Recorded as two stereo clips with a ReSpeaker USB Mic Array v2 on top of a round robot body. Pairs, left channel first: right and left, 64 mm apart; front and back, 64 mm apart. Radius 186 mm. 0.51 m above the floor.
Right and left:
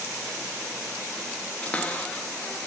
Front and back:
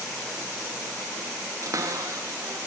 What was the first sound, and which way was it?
A cupboard door, 155° right.